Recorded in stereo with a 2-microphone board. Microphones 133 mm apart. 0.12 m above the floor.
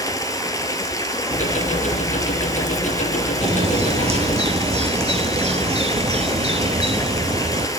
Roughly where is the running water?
Left.